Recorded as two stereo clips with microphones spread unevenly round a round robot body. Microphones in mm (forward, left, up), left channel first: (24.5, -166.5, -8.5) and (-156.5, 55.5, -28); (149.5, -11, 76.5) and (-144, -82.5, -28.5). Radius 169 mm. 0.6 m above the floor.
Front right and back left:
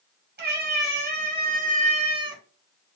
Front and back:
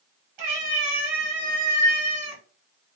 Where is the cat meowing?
175° right, 2 m; by 2.4 s 155° right, 1.0 m.